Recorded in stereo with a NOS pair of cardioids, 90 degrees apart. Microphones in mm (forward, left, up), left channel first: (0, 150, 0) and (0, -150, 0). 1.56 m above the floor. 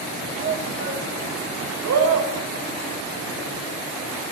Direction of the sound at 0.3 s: 40° right.